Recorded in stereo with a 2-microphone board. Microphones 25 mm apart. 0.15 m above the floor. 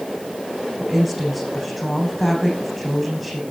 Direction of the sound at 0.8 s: 5° right (ahead or behind).